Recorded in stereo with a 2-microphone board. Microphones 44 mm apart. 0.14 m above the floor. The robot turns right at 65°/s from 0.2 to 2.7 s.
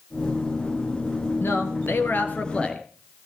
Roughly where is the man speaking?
Left.